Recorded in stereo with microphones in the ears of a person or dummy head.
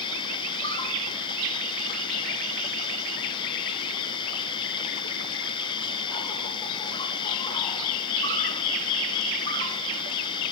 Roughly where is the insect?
Left.